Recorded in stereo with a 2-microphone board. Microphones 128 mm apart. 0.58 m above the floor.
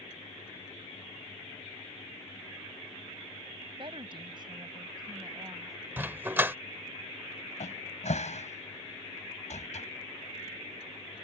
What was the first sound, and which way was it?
A woman speaking, 45° right (ahead or behind).